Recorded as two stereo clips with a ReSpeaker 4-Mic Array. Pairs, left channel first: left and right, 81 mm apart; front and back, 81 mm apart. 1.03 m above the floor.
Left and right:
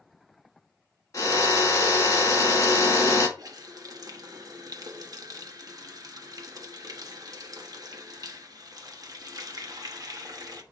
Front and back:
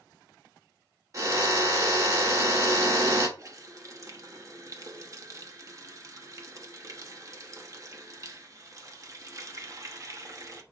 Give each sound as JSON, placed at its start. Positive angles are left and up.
{"t": 1.1, "sound": "a drill", "azimuth_deg": 135, "distance_m": 1.8}
{"t": 3.4, "sound": "a running tap", "azimuth_deg": -130, "distance_m": 1.1}